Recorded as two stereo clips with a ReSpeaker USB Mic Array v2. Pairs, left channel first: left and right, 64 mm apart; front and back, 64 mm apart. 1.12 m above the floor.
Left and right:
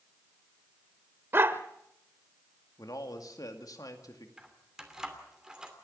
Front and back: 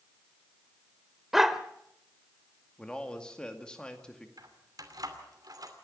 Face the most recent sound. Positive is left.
turn(degrees=-165)